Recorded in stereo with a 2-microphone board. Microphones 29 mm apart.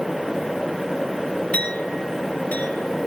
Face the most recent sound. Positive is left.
turn(degrees=50)  # may be behind; listen again after turning